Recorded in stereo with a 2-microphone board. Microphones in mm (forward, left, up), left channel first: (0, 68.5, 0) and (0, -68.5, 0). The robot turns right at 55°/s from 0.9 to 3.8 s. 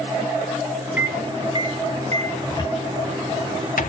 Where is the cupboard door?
25° left (ahead or behind), 1.0 m; by 3.9 s 80° left, 1.0 m.